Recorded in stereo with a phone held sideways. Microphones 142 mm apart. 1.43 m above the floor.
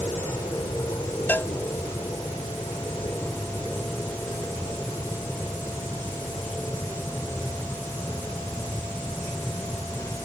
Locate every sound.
0.0 s an aircraft: 20° left (ahead or behind)
1.3 s a cowbell: 15° left (ahead or behind)